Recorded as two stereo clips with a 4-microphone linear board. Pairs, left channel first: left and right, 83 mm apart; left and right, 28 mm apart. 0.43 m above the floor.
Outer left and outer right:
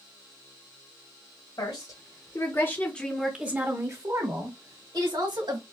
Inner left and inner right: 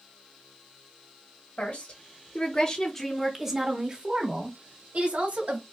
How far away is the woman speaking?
About 1.8 m.